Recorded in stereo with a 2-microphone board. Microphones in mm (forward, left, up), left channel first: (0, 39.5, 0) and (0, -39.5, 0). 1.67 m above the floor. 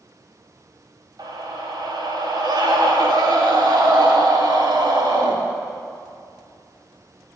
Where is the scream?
65° right (ahead or behind), 2.5 m.